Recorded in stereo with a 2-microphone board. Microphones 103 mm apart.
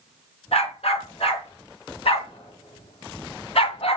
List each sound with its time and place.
0.5 s a dog barking: 75° left (ahead or behind), 3.5 m; by 4.0 s 80° left, 1.9 m